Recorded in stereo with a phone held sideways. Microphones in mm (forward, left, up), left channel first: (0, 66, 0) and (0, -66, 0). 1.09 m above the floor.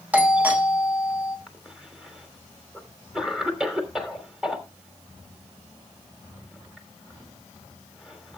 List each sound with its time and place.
0.1 s a doorbell: 15° right (ahead or behind), 1.9 m
1.5 s a cough: 5° right (ahead or behind), 3 m